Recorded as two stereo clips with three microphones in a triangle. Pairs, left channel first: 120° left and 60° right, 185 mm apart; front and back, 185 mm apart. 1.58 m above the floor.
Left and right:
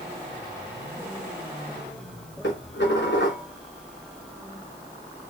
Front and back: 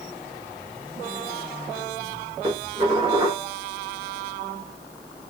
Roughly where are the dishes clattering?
Behind left.